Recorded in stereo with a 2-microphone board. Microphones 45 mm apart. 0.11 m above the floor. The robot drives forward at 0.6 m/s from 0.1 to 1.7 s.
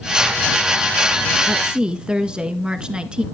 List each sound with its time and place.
1.5 s a woman speaking: 20° right (ahead or behind), 1.1 m